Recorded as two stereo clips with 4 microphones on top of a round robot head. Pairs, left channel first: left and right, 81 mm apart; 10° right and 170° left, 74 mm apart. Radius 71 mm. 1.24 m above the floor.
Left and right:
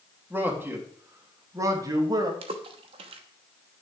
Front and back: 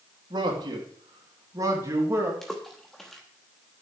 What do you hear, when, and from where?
0.3 s a man speaking: 160° right, 3 m; by 2.3 s 130° right, 2.5 m
2.4 s a splash: 100° right, 0.9 m